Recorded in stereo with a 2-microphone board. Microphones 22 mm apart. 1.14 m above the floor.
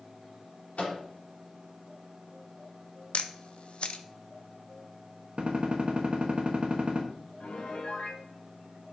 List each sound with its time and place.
0.8 s a microwave: 85° left, 3 m
3.1 s a camera shutter: 55° left (ahead or behind), 0.6 m
5.4 s a gunshot: 50° right (ahead or behind), 1.2 m
7.4 s a piano: 70° left (ahead or behind), 1.8 m